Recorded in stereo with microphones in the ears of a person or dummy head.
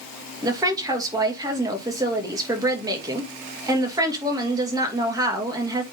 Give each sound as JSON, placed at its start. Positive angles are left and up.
{"t": 0.4, "sound": "a woman speaking", "side_deg": -20, "distance_m": 2.5}